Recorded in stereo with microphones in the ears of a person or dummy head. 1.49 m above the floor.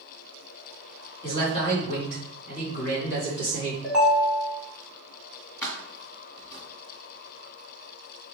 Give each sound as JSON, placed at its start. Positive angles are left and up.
{"t": 1.2, "sound": "a man speaking", "side_deg": 25, "distance_m": 2.5}
{"t": 3.8, "sound": "a ringtone", "side_deg": -5, "distance_m": 1.8}
{"t": 5.6, "sound": "keys jangling", "side_deg": 20, "distance_m": 1.3}